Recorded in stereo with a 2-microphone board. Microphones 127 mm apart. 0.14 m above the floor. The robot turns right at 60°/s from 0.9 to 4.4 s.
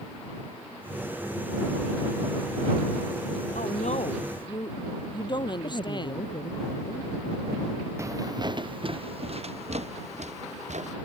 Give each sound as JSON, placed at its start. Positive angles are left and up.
{"t": 3.5, "sound": "a woman speaking", "azimuth_deg": 90}
{"t": 5.6, "sound": "a woman speaking", "side_deg": 45}
{"t": 8.0, "sound": "footsteps", "side_deg": -20}